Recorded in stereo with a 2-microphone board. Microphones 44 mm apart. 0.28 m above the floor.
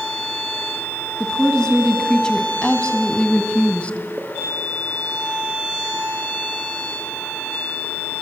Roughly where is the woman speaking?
Centre.